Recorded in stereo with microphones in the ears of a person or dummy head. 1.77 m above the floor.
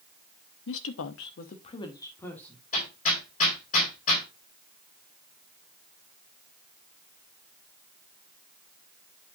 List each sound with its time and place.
0.7 s a woman speaking: 70° left (ahead or behind), 1.2 m; by 2.6 s 5° left (ahead or behind), 2.5 m
2.7 s hammering: 50° left (ahead or behind), 3.5 m